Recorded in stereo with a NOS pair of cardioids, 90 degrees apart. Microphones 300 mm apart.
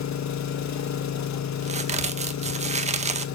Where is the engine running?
65° left, 1.7 m.